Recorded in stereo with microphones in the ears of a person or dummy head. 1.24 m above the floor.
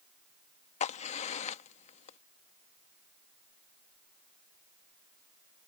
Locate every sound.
0.8 s a crack: 30° left (ahead or behind)